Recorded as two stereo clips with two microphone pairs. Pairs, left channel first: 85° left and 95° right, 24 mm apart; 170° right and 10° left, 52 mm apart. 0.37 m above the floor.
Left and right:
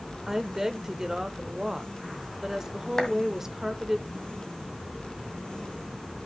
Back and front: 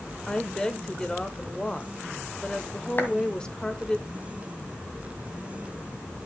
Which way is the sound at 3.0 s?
150° left.